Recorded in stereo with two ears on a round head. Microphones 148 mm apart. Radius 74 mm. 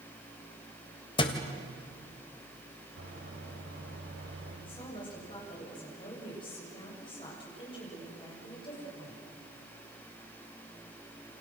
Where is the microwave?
80° right, 7 m.